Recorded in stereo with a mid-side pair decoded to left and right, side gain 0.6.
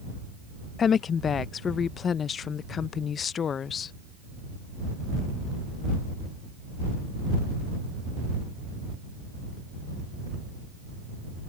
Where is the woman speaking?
40° left.